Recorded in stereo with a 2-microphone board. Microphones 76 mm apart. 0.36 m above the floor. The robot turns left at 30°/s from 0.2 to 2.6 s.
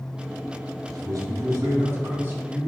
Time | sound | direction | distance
0.9 | a man speaking | 105° right | 2.5 m